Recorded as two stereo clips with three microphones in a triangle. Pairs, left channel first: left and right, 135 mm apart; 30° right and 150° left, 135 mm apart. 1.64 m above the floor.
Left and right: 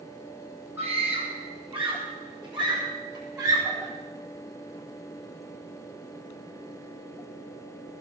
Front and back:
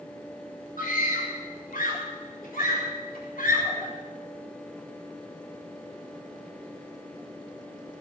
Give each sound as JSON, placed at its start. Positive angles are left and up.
{"t": 0.8, "sound": "a scream", "azimuth_deg": -15, "distance_m": 3.5}